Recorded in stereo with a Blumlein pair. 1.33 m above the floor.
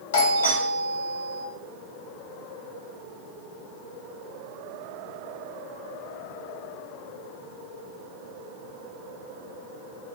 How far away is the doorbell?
About 1.4 m.